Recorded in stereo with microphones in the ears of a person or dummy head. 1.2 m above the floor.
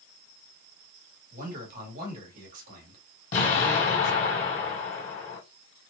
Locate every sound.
1.3 s a man speaking: 50° right (ahead or behind), 1.2 m
3.3 s an explosion: 45° left (ahead or behind), 1.7 m